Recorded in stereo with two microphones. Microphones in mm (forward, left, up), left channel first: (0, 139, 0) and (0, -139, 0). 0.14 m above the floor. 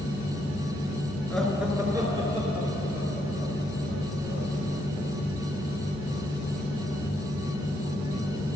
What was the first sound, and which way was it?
Laughter, 5° left (ahead or behind).